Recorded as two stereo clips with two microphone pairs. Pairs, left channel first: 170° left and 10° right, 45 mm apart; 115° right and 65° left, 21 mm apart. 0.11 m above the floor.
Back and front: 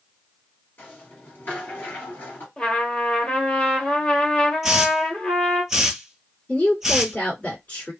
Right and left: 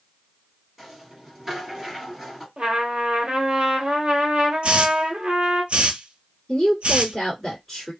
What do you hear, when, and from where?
0.8 s a rattle: 145° left, 1.7 m
2.6 s a trumpet: 100° left, 0.9 m
4.6 s a hiss: 65° left, 0.7 m
6.5 s a woman speaking: 170° left, 1.8 m